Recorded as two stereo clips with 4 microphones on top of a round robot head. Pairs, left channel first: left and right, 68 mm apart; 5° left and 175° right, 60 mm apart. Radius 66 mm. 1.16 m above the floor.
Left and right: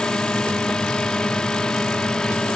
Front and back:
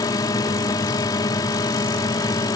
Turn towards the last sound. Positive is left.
turn(degrees=10)